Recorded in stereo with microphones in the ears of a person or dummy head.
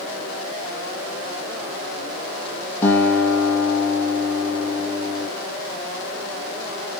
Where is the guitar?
15° left (ahead or behind), 7 m.